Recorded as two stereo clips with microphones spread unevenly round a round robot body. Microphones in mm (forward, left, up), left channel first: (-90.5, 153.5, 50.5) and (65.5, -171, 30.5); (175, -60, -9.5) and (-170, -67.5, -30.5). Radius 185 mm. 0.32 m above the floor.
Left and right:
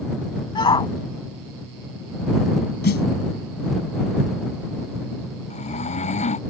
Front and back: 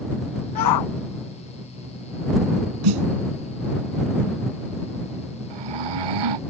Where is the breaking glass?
I don't hear breaking glass.